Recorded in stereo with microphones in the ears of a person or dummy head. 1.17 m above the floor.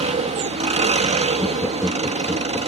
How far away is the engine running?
About 1.5 m.